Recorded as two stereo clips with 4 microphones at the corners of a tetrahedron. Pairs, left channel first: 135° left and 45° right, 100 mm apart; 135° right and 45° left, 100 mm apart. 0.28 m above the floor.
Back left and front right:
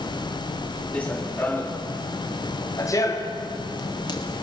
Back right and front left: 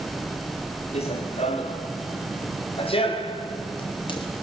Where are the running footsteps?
145° right, 3 m; by 4.3 s 175° right, 4 m.